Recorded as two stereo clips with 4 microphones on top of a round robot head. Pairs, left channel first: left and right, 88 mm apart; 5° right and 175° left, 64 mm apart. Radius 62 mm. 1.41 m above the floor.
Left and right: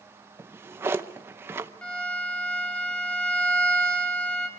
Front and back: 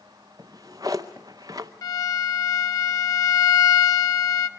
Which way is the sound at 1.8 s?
10° left.